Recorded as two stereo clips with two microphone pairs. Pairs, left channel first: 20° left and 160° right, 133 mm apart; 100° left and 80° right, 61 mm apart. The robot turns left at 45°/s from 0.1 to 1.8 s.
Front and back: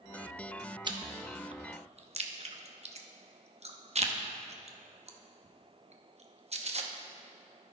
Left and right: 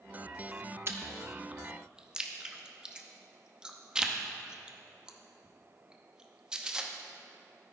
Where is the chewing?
110° right, 0.6 m; by 6.9 s 155° right, 0.6 m.